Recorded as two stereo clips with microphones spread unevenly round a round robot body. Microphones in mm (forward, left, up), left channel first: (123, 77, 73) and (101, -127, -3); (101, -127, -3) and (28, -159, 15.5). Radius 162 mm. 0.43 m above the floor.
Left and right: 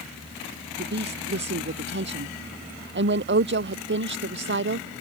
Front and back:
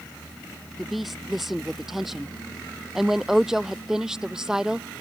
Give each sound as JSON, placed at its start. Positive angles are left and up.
{"t": 0.8, "sound": "a woman speaking", "azimuth_deg": -70}